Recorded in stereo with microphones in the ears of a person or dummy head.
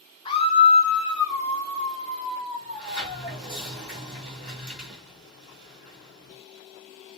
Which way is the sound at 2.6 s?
Centre (ahead or behind).